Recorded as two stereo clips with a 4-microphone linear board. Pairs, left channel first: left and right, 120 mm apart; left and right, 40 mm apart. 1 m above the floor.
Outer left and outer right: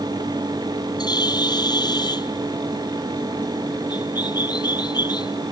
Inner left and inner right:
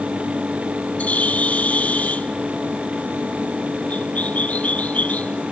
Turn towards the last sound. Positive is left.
turn(degrees=35)  # may be behind; listen again after turning